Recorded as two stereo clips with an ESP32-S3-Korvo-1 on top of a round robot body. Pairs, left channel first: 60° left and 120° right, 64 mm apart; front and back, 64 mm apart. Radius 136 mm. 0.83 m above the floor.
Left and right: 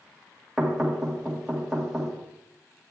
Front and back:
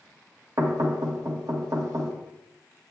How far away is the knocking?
About 1.6 m.